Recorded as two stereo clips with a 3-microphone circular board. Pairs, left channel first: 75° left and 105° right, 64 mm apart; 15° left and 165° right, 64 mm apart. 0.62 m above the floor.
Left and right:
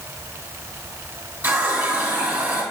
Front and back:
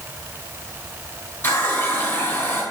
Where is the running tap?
40° right, 3.5 m.